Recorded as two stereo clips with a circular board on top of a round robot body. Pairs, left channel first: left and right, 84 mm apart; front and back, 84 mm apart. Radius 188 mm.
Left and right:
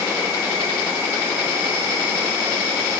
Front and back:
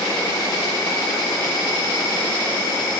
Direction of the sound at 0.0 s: 30° right.